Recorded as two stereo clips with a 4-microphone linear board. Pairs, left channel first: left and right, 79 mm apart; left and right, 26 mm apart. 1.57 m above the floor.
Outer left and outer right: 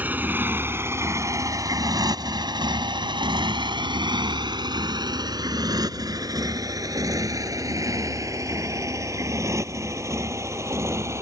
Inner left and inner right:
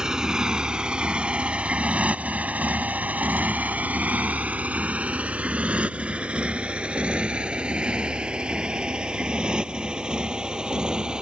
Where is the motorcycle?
25° right (ahead or behind); by 11.2 s 35° right (ahead or behind).